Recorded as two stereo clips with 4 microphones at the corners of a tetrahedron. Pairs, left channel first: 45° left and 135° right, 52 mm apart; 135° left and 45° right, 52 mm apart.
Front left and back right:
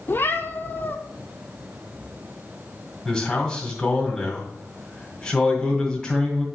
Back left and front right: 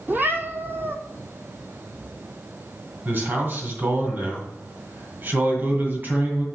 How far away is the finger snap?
I don't hear a finger snap.